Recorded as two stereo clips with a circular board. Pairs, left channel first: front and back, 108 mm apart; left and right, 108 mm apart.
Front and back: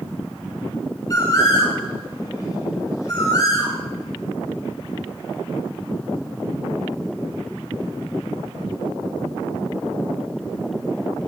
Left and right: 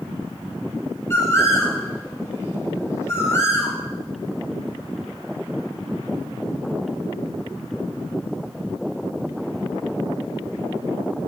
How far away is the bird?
About 1.2 m.